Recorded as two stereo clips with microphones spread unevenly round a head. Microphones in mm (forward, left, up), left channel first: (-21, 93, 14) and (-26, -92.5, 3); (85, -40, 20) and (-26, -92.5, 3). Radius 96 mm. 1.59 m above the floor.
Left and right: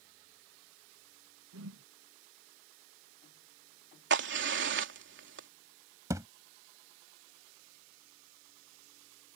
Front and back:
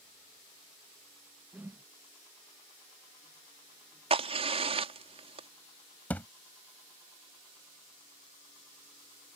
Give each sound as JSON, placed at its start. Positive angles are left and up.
{"t": 1.5, "sound": "a whoosh", "azimuth_deg": -80}
{"t": 4.1, "sound": "a crack", "azimuth_deg": -115}
{"t": 6.1, "sound": "a thud", "azimuth_deg": -25}